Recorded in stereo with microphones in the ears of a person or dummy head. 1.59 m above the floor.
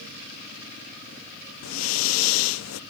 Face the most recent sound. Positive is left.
turn(degrees=90)